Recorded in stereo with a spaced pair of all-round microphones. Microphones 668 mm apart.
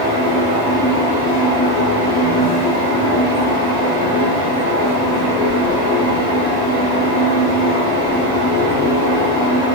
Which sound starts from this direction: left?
A fan, at 0.0 s.